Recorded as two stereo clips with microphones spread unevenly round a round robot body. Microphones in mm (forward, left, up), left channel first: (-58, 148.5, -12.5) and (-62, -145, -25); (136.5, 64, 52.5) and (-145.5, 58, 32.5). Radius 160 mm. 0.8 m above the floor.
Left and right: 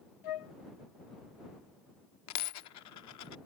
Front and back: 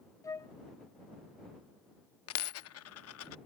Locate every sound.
0.2 s a flute: 80° left
2.3 s a dropped coin: 45° left